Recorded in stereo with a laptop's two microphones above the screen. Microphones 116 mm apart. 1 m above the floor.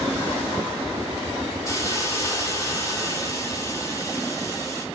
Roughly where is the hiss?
Left.